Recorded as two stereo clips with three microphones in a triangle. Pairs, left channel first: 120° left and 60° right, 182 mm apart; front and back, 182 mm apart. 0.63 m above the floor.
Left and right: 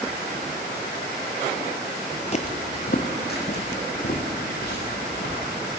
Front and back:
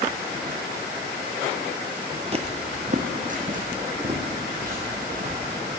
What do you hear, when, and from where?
2.3 s footsteps: 145° left, 0.8 m; by 5.3 s 140° left, 4.5 m